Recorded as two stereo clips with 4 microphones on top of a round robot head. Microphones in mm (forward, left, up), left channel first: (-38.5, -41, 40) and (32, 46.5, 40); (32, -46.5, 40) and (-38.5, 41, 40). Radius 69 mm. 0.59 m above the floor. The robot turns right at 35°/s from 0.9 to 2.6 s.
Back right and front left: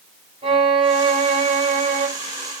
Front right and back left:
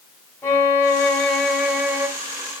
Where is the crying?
No crying in this recording.